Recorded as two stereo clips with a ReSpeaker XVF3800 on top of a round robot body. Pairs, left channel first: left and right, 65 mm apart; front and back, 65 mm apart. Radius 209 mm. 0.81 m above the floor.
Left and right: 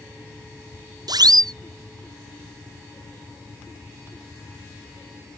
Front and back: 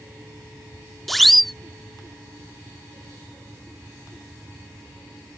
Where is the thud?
No thud in this recording.